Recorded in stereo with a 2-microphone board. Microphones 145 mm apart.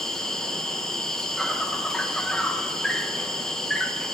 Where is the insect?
5° left (ahead or behind), 1.3 m.